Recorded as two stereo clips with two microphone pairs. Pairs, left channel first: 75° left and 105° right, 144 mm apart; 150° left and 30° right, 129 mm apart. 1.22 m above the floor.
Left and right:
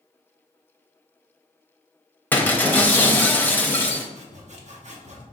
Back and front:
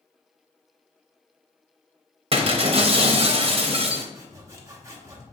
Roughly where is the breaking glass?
Ahead.